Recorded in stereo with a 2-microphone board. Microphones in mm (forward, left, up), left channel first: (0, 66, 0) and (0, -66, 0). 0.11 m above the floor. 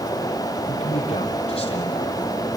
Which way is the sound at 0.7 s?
50° left (ahead or behind).